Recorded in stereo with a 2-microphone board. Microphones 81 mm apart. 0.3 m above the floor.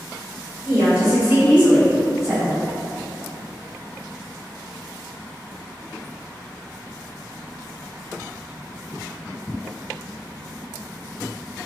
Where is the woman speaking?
30° right (ahead or behind), 1.4 m; by 2.6 s 10° right (ahead or behind), 2.5 m.